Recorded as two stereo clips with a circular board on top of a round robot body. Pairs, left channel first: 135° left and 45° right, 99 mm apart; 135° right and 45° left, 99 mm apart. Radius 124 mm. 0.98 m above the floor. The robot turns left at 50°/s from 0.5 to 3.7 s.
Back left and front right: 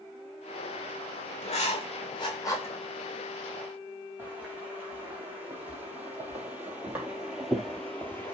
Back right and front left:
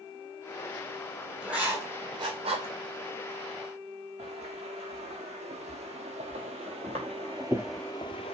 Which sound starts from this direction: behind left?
Writing, at 1.4 s.